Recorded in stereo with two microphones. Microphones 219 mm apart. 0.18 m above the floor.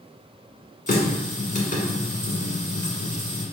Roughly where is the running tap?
Left.